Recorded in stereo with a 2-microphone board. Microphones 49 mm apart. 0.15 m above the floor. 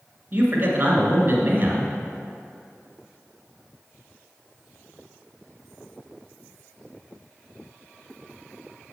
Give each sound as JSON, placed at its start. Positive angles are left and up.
{"t": 0.3, "sound": "a man speaking", "side_deg": -40, "distance_m": 1.9}